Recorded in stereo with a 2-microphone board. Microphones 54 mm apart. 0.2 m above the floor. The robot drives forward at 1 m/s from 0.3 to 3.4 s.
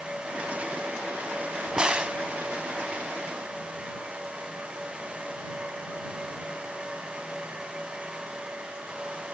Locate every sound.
1.8 s a crack: 15° right (ahead or behind), 0.6 m; by 2.2 s 20° right (ahead or behind), 0.5 m